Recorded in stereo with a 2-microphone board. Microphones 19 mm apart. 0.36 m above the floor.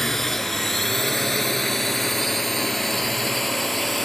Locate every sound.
0.0 s a drone: 20° left (ahead or behind); by 4.1 s 5° left (ahead or behind)